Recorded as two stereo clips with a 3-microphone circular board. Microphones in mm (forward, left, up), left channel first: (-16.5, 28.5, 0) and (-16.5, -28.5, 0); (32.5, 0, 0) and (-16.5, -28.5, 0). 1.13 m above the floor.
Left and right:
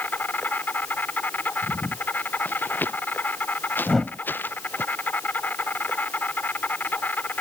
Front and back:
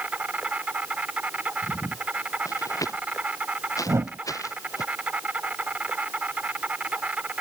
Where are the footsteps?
35° left.